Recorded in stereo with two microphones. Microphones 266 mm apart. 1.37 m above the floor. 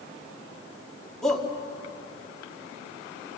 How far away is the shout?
About 3 m.